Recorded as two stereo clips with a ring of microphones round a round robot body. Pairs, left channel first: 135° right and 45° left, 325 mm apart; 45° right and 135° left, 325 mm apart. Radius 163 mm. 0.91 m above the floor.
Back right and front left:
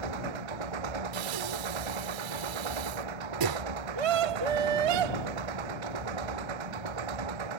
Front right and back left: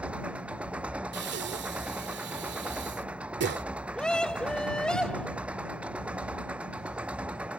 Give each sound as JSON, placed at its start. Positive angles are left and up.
{"t": 0.0, "sound": "an engine running", "azimuth_deg": 50}
{"t": 1.1, "sound": "breathing", "azimuth_deg": 75}
{"t": 4.0, "sound": "a scream", "azimuth_deg": 45}